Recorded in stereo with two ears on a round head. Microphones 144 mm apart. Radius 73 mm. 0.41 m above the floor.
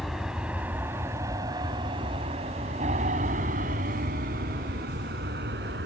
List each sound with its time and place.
0.0 s an aircraft: centre (ahead or behind); by 5.9 s 70° right (ahead or behind)